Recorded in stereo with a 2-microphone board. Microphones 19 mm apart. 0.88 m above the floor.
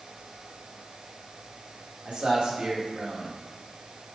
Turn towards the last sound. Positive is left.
turn(degrees=-70)  # may be behind; listen again after turning